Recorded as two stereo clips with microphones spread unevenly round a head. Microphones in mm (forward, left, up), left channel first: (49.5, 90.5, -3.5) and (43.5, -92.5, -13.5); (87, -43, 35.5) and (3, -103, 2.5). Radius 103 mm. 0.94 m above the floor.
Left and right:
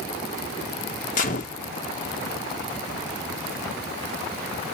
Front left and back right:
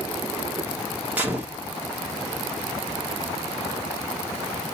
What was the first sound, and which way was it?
A gunshot, 145° left.